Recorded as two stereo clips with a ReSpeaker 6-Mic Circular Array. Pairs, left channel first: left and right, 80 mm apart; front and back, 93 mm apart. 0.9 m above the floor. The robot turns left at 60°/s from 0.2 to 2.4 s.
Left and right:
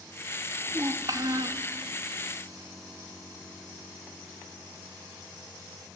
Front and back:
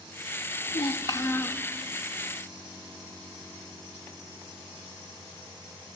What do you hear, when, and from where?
0.7 s a child speaking: 25° right, 0.5 m; by 1.6 s 80° right, 0.5 m